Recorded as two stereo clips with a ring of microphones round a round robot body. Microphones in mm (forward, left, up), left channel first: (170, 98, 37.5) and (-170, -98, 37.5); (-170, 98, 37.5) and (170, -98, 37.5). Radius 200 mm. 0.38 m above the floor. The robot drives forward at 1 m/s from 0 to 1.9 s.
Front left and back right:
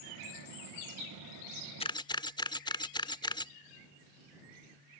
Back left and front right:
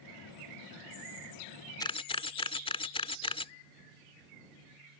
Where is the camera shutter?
80° left; by 3.5 s 95° left.